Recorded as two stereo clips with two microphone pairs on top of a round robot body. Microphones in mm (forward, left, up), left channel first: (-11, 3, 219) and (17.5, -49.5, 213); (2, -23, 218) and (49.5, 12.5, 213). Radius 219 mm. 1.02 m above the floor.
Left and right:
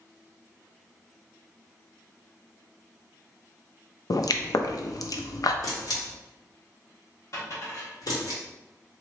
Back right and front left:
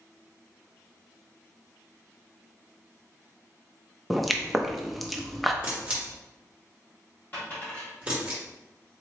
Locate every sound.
4.1 s a pop: 125° left, 0.6 m
5.6 s a camera shutter: 110° left, 1.3 m
7.3 s a dropped coin: 155° left, 1.4 m